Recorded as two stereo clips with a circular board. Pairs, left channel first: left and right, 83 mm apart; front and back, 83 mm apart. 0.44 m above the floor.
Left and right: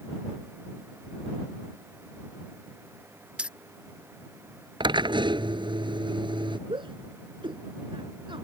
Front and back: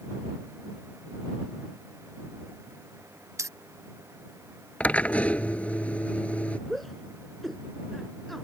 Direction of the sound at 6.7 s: 85° right.